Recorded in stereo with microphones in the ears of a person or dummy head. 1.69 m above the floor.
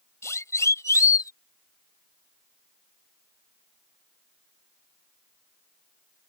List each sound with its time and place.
0.2 s a siren: 15° left (ahead or behind)